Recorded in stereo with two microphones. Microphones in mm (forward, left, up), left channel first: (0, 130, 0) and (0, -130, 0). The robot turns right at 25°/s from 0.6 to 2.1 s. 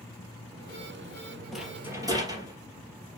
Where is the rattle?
Centre (ahead or behind), 2.5 m; by 2.5 s 15° right (ahead or behind), 2.5 m.